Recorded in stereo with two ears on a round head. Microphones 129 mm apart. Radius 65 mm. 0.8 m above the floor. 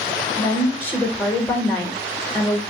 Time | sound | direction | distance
0.4 | a woman speaking | 15° left (ahead or behind) | 1.1 m